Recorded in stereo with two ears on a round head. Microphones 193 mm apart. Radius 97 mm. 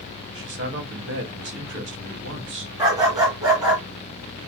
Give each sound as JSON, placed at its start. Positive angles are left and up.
{"t": 0.3, "sound": "a man speaking", "side_deg": -60, "distance_m": 1.5}
{"t": 2.8, "sound": "a dog barking", "side_deg": -20, "distance_m": 2.5}